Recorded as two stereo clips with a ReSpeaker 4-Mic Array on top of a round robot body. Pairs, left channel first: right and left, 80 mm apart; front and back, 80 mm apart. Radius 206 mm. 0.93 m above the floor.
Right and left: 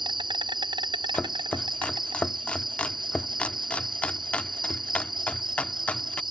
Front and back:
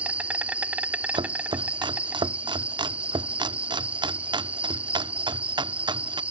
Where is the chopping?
165° right.